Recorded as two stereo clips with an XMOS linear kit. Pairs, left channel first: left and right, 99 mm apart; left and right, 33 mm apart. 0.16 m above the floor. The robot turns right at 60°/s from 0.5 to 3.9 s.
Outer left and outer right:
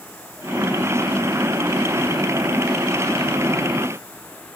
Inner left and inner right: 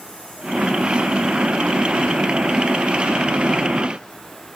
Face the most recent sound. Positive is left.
No sound to turn to.